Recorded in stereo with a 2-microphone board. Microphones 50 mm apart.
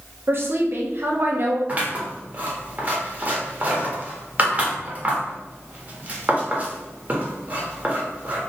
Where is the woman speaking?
50° right (ahead or behind), 0.9 m.